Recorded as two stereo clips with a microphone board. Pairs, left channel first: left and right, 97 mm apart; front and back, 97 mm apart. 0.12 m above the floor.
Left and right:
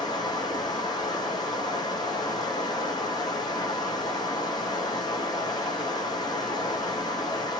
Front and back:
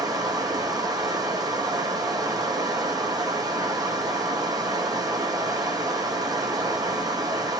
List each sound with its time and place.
0.0 s running water: 135° left, 1.0 m